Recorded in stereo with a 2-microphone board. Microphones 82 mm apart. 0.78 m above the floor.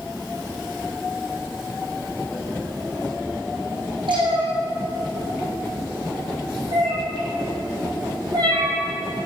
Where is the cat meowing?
80° right, 4 m; by 8.7 s 55° right (ahead or behind), 3 m.